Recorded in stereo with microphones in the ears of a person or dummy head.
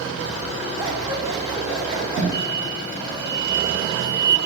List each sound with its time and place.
0.8 s scissors: 20° right (ahead or behind), 5.5 m
2.3 s an explosion: 30° left (ahead or behind), 6.5 m